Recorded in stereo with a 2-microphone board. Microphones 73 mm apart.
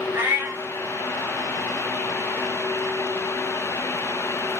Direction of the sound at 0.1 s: 30° right (ahead or behind).